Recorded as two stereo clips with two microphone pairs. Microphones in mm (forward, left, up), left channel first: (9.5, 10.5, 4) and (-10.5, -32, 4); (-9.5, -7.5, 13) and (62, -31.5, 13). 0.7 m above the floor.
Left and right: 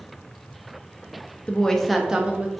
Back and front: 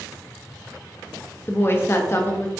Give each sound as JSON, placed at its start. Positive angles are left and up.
{"t": 1.5, "sound": "a woman speaking", "azimuth_deg": 115, "distance_m": 0.5}